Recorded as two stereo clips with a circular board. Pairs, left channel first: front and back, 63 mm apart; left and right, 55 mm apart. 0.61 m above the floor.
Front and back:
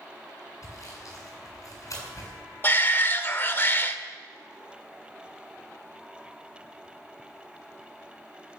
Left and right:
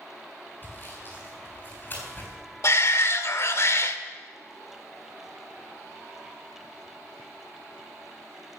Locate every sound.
0.6 s sawing: 35° left, 7 m
2.6 s a shout: 55° left, 1.5 m